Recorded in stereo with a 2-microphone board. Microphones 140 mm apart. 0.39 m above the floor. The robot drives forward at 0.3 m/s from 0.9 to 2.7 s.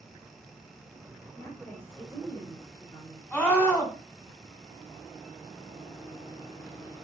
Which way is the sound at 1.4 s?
15° left (ahead or behind).